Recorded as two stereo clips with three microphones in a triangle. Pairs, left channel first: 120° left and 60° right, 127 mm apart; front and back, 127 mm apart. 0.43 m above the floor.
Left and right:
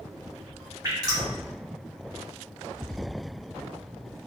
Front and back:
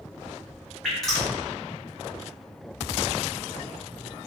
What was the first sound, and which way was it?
Dripping, 85° right.